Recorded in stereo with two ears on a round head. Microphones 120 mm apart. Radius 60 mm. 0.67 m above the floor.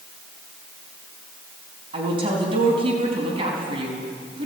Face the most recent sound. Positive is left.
turn(degrees=-35)  # may be behind; listen again after turning